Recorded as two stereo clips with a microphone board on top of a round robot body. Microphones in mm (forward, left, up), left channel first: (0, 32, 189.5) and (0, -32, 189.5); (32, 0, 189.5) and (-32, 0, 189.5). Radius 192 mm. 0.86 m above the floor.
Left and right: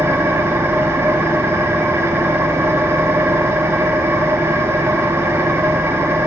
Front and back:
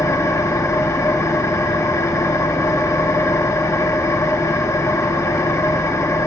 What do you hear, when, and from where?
0.0 s an engine running: 40° right, 1.2 m